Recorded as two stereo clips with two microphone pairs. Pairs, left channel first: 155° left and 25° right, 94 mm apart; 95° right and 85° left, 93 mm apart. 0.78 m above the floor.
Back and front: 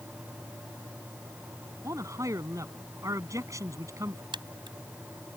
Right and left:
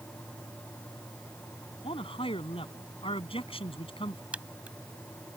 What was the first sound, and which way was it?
A man speaking, 85° right.